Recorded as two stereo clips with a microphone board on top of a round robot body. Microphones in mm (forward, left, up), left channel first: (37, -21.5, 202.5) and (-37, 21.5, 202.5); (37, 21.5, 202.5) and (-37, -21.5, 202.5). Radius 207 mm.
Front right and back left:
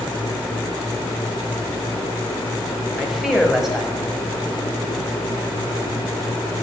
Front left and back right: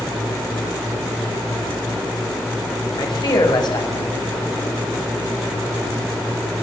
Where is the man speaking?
65° left, 6.5 m.